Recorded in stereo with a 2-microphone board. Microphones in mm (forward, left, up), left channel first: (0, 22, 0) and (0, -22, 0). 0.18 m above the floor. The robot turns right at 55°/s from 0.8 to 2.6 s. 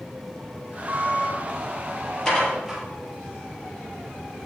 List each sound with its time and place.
0.9 s a squeak: 40° right (ahead or behind), 2.5 m; by 1.3 s 15° right (ahead or behind), 2.5 m
2.2 s dishes clattering: 15° left (ahead or behind), 3 m; by 2.8 s centre (ahead or behind), 3 m